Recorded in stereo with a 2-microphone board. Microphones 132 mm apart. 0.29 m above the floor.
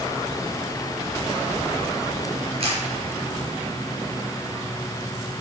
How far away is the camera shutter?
About 3.5 m.